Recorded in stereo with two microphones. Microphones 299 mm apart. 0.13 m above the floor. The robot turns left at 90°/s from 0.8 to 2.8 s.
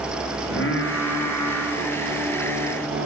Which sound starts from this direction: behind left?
Singing, at 0.4 s.